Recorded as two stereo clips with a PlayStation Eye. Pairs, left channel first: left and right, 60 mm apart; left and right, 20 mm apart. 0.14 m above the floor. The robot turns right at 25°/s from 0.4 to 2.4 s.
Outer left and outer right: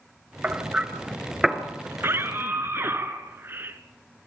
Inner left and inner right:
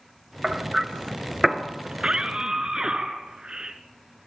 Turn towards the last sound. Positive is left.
turn(degrees=-40)  # may be behind; listen again after turning